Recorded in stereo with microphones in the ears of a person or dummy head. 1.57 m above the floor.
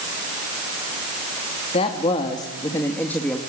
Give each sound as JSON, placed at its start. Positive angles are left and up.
{"t": 1.7, "sound": "a woman speaking", "side_deg": 35, "distance_m": 3.0}